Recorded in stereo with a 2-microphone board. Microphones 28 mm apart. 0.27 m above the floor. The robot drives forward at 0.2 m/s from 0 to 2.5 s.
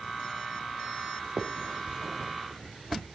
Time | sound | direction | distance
1.4 | a finger snap | 30° right (ahead or behind) | 1.1 m